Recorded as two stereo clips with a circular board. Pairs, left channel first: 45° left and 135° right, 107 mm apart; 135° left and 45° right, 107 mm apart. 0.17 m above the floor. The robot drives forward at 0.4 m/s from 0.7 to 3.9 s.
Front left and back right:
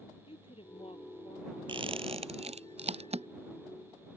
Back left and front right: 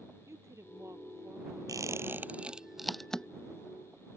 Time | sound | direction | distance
0.3 | a woman speaking | 20° left | ?
1.7 | a squeak | 100° right | ?